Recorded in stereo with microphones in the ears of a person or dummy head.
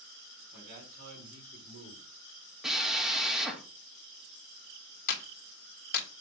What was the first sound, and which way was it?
A man speaking, 50° right (ahead or behind).